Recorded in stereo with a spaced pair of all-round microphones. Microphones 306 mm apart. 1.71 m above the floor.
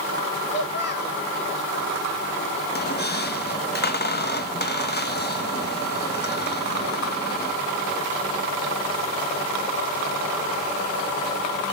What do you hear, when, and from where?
0.5 s a child speaking: 40° left (ahead or behind), 1.7 m
2.7 s a squeak: 35° left (ahead or behind), 0.8 m